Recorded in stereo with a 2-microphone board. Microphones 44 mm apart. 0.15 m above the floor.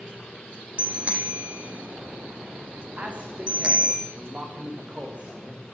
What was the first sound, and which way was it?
A bicycle bell, 30° right (ahead or behind).